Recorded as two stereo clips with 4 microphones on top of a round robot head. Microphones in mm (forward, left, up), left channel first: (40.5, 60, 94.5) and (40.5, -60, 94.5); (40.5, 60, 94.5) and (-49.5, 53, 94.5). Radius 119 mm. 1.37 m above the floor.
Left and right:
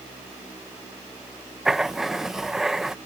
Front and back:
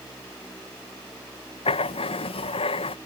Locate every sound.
1.6 s writing: 5° right